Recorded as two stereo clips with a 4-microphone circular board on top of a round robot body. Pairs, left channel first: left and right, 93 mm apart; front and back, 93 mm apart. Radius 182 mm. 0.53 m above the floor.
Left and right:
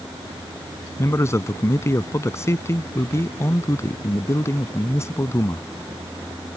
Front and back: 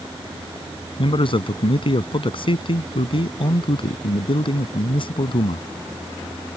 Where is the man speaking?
30° left.